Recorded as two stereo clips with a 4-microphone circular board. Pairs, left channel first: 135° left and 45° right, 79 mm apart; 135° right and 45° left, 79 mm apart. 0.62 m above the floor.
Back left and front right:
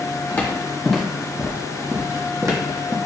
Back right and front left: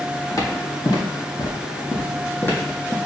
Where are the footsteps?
160° right, 1.1 m; by 3.0 s 70° right, 1.2 m.